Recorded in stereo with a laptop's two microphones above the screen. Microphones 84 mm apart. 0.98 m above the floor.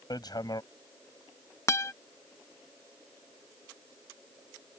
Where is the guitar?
35° left (ahead or behind).